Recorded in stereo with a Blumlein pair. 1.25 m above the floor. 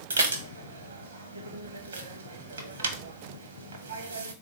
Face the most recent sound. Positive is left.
turn(degrees=-70)